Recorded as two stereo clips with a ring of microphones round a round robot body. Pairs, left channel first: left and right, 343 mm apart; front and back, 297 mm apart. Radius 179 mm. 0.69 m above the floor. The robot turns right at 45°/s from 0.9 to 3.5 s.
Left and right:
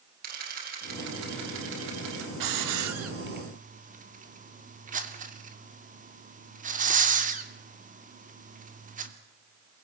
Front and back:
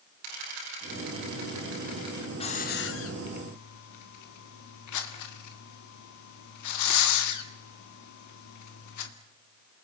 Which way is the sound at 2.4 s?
75° right.